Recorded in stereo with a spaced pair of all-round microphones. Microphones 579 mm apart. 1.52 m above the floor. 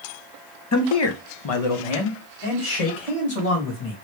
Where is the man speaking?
30° left (ahead or behind), 0.5 m; by 3.9 s 80° left, 2 m.